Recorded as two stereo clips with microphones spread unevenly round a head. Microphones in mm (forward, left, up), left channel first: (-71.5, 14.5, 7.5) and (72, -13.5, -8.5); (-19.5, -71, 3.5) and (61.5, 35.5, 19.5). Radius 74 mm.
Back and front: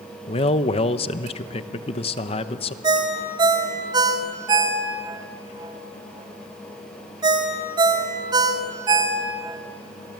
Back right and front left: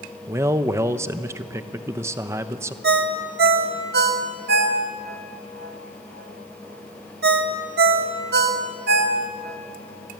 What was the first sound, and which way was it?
A man speaking, 125° left.